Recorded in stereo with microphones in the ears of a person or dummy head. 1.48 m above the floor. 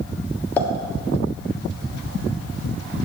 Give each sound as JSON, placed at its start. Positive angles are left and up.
{"t": 0.6, "sound": "a pop", "side_deg": 10, "distance_m": 1.2}